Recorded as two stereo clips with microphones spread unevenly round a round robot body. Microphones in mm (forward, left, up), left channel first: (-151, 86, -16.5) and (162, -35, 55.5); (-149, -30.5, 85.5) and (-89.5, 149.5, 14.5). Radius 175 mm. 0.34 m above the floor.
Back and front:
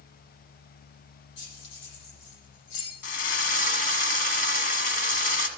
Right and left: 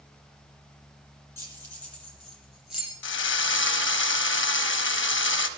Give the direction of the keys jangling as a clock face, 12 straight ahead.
6 o'clock.